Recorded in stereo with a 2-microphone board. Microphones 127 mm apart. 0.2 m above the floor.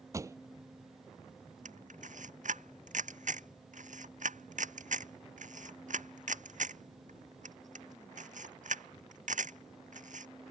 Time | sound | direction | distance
0.1 | a pop | 25° right (ahead or behind) | ?
1.6 | a camera shutter | 80° right | ?